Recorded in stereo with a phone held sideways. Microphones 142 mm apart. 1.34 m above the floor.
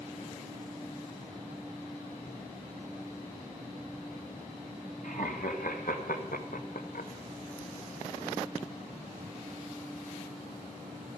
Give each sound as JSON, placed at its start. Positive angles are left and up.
{"t": 5.0, "sound": "laughter", "side_deg": 70, "distance_m": 1.8}